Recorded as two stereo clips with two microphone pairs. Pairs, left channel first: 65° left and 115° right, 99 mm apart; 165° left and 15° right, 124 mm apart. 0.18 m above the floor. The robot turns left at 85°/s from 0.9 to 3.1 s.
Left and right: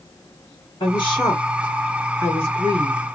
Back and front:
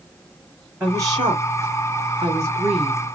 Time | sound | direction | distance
0.8 | a woman speaking | 55° left | 3 m